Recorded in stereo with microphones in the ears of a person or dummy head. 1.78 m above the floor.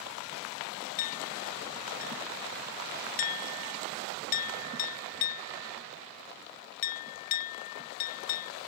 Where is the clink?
45° left (ahead or behind).